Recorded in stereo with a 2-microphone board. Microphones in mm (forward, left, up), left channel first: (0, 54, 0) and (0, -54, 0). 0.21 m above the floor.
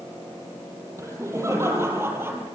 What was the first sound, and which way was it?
Laughter, 30° right (ahead or behind).